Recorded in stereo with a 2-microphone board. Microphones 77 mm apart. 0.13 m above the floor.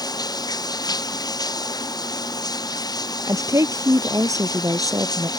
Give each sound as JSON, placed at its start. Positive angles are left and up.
{"t": 0.0, "sound": "running water", "side_deg": 60}
{"t": 3.3, "sound": "a woman speaking", "side_deg": -45}